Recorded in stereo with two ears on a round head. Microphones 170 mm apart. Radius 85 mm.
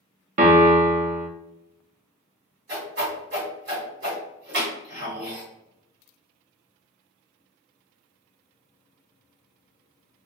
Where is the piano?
40° right (ahead or behind), 0.6 m.